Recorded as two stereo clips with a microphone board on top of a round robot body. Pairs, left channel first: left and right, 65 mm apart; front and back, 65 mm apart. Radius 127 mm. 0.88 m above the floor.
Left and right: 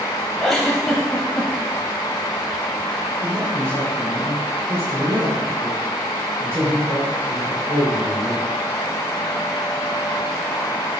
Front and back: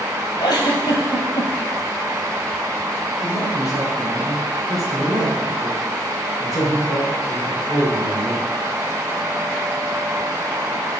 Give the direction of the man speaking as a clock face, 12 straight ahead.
1 o'clock.